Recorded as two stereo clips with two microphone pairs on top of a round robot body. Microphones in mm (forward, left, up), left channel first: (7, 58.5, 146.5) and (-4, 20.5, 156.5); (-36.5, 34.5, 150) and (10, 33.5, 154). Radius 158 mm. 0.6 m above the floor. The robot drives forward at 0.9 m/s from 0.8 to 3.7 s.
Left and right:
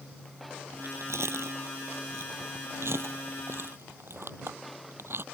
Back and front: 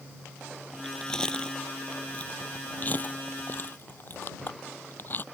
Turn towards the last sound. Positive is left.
turn(degrees=-130)